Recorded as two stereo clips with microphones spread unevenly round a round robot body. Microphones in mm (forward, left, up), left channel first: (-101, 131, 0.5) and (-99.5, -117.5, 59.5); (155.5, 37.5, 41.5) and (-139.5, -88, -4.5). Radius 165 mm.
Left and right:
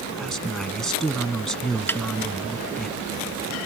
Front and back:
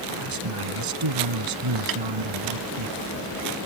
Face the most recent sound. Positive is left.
turn(degrees=175)